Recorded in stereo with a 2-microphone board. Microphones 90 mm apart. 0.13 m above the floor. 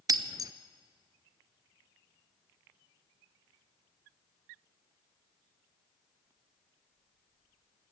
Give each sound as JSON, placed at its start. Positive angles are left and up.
{"t": 0.1, "sound": "breaking glass", "side_deg": -45, "distance_m": 0.7}